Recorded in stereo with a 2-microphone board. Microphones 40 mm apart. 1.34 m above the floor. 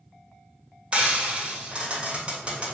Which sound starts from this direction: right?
Frying, at 0.9 s.